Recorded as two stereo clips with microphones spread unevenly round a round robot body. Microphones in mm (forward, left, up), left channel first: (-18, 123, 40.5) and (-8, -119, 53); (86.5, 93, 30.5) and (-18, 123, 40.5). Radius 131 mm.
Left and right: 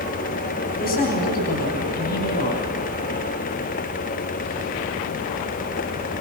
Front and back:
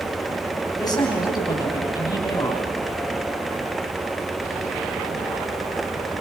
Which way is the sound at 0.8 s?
40° left.